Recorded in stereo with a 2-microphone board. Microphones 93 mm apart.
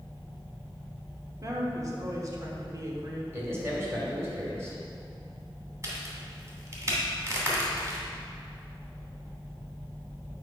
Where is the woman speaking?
40° right (ahead or behind), 1.0 m.